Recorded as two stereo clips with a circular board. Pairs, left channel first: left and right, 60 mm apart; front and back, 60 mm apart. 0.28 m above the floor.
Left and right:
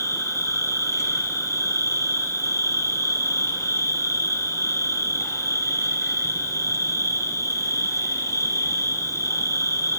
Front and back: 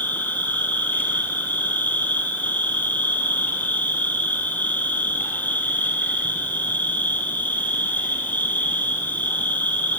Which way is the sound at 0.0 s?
60° left.